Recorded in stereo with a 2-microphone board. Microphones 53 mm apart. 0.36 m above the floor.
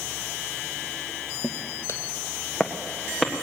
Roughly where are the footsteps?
Left.